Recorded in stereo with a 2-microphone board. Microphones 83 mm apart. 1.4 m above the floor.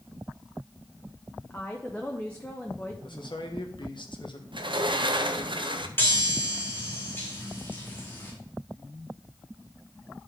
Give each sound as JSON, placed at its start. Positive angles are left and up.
{"t": 1.5, "sound": "a woman speaking", "side_deg": 20, "distance_m": 0.8}
{"t": 3.0, "sound": "a man speaking", "side_deg": 60, "distance_m": 1.4}
{"t": 4.5, "sound": "a sliding door", "side_deg": -65, "distance_m": 0.7}
{"t": 6.0, "sound": "a chime", "side_deg": 25, "distance_m": 2.0}